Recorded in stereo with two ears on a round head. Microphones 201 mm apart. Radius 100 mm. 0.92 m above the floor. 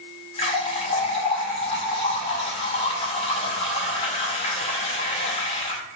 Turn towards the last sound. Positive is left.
turn(degrees=25)  # may be behind; listen again after turning